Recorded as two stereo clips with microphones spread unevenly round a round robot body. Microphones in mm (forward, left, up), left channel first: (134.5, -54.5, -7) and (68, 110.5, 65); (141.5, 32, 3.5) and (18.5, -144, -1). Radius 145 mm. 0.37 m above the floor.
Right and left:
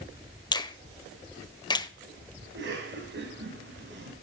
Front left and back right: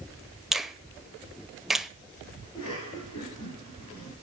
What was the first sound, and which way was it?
A finger snap, 40° right.